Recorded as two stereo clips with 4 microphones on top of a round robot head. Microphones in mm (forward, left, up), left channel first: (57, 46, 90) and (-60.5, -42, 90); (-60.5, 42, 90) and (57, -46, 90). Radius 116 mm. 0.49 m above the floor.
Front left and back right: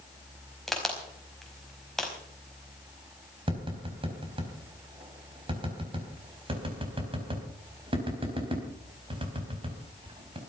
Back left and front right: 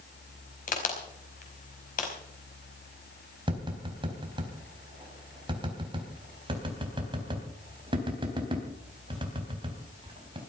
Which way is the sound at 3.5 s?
90° right.